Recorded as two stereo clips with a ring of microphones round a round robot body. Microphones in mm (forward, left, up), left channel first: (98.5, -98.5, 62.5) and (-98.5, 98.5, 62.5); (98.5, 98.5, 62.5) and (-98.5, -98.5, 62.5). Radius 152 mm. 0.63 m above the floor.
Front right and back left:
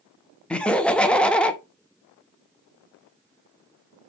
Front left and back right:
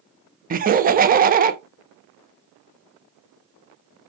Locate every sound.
0.5 s laughter: 125° right, 0.7 m